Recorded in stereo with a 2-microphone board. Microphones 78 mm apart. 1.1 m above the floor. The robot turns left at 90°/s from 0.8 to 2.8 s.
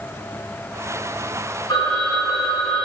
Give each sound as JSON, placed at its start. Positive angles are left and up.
{"t": 1.7, "sound": "a phone ringing", "azimuth_deg": 105, "distance_m": 2.5}